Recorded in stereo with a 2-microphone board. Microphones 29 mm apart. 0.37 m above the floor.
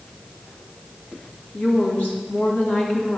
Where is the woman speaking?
65° left (ahead or behind), 3.5 m.